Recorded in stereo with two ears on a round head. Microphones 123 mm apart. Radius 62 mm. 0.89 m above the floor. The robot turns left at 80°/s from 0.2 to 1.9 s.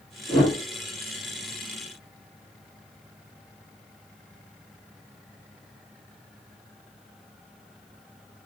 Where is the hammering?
I don't hear hammering.